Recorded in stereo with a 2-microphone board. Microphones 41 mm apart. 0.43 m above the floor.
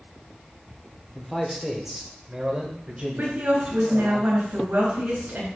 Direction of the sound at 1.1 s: 5° left (ahead or behind).